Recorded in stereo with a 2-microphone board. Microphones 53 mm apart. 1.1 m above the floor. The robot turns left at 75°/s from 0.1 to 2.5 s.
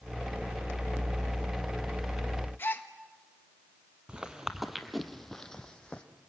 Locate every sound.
2.6 s a gasp: 40° left (ahead or behind), 1.3 m
4.1 s footsteps: 20° right (ahead or behind), 1.1 m; by 6.0 s 20° left (ahead or behind), 1.8 m